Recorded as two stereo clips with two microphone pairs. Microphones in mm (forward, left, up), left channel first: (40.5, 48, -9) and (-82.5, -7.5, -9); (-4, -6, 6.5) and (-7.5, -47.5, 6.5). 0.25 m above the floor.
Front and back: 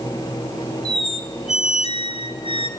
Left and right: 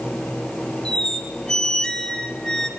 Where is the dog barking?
I don't hear a dog barking.